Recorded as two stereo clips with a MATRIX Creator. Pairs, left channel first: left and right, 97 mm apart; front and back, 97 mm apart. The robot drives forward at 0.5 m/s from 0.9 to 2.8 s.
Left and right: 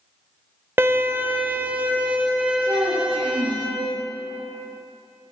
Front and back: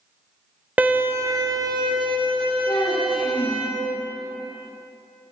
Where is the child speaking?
25° right, 2.5 m.